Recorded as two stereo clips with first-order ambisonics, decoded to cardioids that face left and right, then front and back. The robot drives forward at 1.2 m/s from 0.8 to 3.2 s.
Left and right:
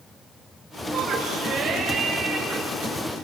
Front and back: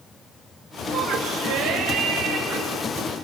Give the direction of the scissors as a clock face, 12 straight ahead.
No scissors in this recording.